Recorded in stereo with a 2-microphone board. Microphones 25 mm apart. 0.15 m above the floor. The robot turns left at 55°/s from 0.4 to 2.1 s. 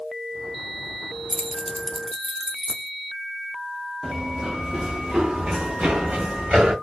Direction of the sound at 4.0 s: 15° right (ahead or behind).